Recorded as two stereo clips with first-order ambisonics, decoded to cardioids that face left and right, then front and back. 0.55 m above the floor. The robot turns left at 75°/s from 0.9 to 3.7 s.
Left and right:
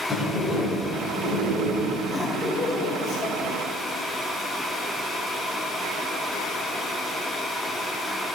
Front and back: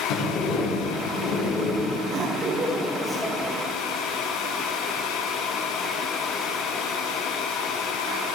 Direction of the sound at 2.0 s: 165° left.